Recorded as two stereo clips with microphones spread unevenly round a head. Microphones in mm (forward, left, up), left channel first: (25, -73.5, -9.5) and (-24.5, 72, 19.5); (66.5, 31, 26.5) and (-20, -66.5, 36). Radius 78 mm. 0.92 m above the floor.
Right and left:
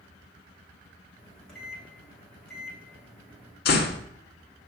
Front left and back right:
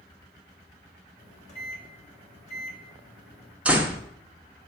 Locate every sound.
1.2 s a microwave: 15° left, 1.5 m
3.6 s a door slam: 50° right, 1.0 m